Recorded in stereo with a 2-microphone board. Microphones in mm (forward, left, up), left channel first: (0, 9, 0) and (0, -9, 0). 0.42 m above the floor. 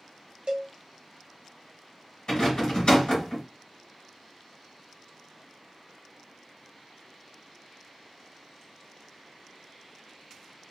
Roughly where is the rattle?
Left.